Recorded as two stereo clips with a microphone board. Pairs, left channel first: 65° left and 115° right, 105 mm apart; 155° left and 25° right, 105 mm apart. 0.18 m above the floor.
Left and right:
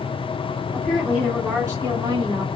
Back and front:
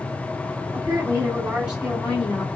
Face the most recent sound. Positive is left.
turn(degrees=-115)